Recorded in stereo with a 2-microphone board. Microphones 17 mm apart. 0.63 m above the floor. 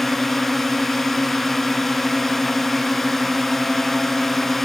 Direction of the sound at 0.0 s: 20° left (ahead or behind).